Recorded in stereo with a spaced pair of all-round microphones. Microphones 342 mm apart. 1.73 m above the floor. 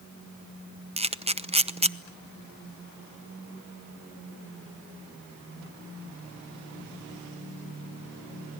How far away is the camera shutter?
About 0.8 m.